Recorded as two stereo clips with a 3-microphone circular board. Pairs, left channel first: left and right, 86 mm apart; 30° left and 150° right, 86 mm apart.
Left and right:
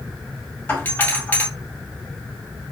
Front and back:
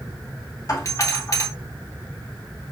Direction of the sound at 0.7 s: 35° left.